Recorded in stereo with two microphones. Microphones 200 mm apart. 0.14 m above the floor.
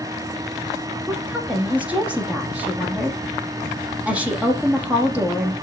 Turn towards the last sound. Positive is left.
turn(degrees=-5)  # may be behind; listen again after turning